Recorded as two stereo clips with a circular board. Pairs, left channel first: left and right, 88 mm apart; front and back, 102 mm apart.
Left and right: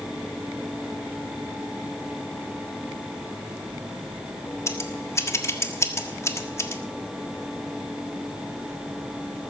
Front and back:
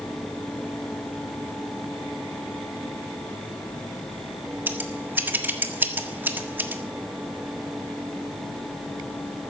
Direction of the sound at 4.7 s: 120° left.